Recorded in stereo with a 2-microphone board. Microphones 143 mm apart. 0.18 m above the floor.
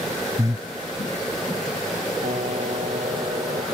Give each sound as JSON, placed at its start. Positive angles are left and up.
{"t": 0.4, "sound": "breathing", "side_deg": -25}
{"t": 2.2, "sound": "a piano", "side_deg": -60}